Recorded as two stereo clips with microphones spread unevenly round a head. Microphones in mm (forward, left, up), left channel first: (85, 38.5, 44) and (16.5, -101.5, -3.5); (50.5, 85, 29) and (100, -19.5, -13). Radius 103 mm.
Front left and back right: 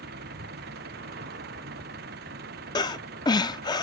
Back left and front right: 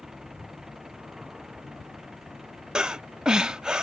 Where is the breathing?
40° left.